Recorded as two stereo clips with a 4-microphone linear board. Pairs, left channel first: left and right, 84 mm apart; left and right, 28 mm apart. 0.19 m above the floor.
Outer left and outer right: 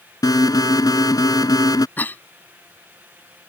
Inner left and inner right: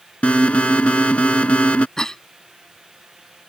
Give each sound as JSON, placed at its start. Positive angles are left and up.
{"t": 0.2, "sound": "an alarm", "side_deg": 50}
{"t": 2.0, "sound": "a cough", "side_deg": 25}